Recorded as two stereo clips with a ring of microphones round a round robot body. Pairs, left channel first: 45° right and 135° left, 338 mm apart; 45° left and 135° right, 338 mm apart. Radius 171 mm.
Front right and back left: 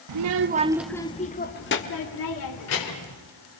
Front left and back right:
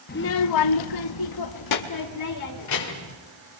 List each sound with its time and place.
0.1 s a child speaking: 110° left, 0.9 m; by 3.2 s straight ahead, 3 m